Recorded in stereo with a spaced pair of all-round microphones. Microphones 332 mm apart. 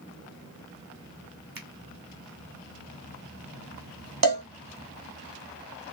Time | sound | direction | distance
1.6 | a finger snap | 80° right | 1.6 m
4.2 | a cowbell | 75° right (ahead or behind) | 1.4 m